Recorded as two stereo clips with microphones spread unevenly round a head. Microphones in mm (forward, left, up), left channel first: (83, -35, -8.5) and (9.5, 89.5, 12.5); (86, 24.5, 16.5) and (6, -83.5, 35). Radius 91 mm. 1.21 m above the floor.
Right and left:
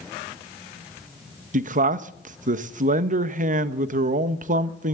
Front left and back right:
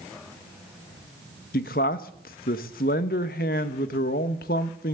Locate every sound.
1.5 s a man speaking: 90° left, 1.0 m